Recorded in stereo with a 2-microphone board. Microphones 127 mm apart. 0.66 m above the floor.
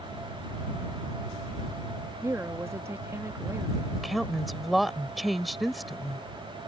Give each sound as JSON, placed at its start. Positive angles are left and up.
{"t": 2.2, "sound": "a woman speaking", "side_deg": -20}
{"t": 4.0, "sound": "a woman speaking", "side_deg": 0}